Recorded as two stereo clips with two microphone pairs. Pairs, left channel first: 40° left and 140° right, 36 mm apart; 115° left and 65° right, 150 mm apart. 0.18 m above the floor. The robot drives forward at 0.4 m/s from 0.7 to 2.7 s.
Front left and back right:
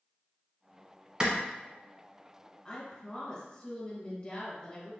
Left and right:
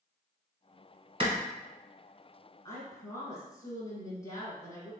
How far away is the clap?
About 1.0 m.